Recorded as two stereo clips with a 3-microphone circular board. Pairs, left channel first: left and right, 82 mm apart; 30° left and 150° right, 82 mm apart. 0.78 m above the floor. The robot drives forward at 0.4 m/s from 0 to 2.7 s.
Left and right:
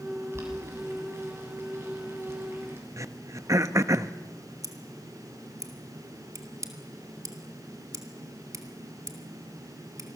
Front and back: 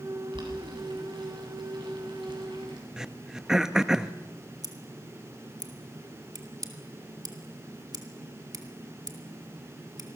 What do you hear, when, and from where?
0.3 s boiling: 145° right, 7.5 m
3.0 s throat clearing: 70° right, 0.8 m
4.6 s scissors: 125° right, 2 m